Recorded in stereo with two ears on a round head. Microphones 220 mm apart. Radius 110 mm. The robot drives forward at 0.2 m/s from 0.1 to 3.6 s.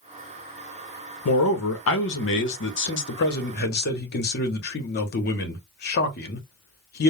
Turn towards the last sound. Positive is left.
turn(degrees=45)  # may be behind; listen again after turning